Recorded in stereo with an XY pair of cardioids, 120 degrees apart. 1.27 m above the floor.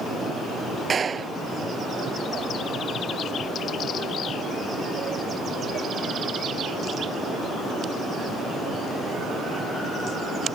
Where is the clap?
35° right.